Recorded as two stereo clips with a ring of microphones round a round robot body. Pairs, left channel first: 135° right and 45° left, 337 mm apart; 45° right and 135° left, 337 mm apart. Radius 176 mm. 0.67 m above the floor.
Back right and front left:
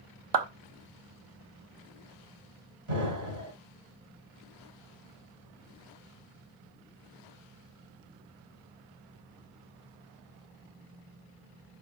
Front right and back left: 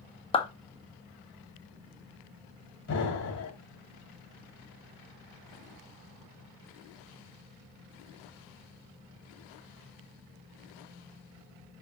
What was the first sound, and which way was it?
A clap, 30° left.